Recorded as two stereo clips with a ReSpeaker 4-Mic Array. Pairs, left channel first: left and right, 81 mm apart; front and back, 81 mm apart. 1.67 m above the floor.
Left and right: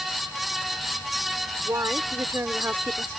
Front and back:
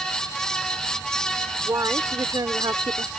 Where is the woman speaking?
135° right; by 3.1 s 155° right.